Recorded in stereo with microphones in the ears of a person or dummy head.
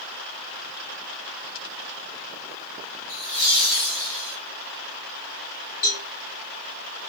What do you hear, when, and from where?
3.1 s laughter: 30° left (ahead or behind), 1.0 m; by 4.4 s 10° right (ahead or behind), 1.3 m
5.8 s a cowbell: 45° left (ahead or behind), 2 m